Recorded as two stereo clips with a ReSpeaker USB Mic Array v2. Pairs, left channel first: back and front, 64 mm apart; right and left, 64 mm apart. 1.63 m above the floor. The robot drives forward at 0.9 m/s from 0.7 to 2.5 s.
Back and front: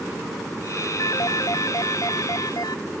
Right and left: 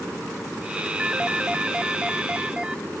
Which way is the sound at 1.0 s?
165° left.